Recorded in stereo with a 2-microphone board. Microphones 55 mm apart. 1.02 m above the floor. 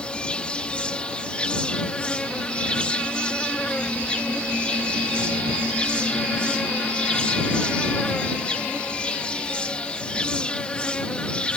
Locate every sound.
0.0 s an insect: 20° left (ahead or behind)